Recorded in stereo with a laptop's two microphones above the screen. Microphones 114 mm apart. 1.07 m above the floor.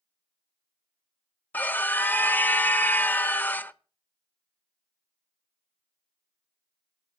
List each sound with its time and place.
1.5 s a scream: 15° left (ahead or behind), 1.0 m